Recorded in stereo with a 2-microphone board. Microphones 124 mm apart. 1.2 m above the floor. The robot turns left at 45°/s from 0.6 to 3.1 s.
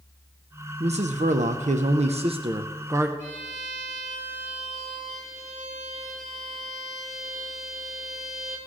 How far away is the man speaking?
About 0.6 m.